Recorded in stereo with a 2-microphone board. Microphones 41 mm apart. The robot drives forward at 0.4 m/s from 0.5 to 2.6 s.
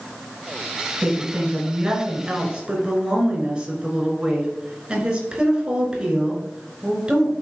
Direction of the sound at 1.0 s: 20° right (ahead or behind).